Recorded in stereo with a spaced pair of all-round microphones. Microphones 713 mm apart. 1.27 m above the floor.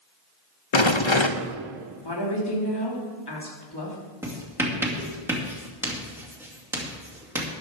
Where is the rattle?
45° left (ahead or behind), 0.6 m.